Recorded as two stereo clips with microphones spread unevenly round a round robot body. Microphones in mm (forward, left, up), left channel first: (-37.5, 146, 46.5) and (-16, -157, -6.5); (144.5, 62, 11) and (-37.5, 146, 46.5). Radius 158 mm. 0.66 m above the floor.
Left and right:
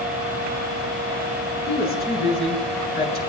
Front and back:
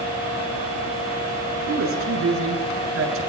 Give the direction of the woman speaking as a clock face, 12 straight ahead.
7 o'clock.